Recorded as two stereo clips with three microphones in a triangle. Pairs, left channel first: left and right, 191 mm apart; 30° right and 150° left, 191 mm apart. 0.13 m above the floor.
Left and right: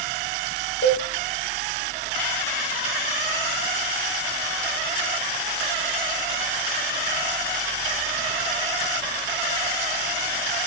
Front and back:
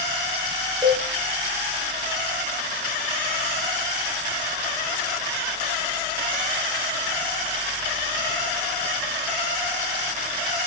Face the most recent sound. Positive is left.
turn(degrees=65)